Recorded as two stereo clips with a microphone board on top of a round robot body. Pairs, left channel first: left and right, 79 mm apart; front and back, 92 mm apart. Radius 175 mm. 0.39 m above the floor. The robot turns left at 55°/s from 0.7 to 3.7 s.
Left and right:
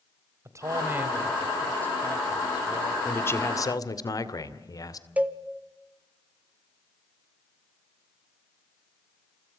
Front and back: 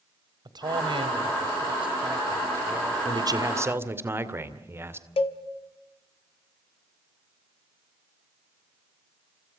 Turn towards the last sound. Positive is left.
turn(degrees=-15)